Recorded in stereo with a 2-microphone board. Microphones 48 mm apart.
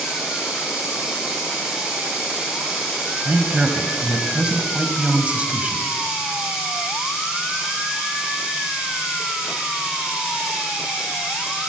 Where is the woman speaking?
25° right (ahead or behind), 1.1 m.